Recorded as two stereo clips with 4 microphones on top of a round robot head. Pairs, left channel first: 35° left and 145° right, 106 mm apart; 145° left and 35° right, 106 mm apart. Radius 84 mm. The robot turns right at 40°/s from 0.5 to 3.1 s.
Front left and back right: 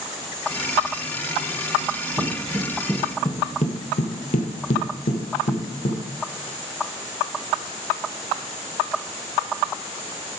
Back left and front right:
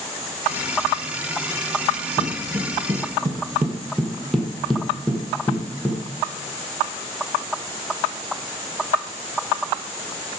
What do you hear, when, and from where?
2.2 s footsteps: 115° right, 1.5 m; by 6.0 s 70° left, 3 m